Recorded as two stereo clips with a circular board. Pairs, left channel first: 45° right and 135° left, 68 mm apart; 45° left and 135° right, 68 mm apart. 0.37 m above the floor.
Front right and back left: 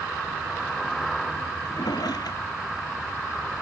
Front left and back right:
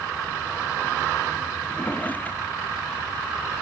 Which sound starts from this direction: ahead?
A drawer, at 1.6 s.